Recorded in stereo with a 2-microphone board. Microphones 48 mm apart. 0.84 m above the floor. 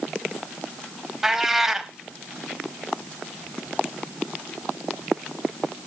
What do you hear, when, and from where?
1.2 s a cat meowing: 10° right (ahead or behind), 0.7 m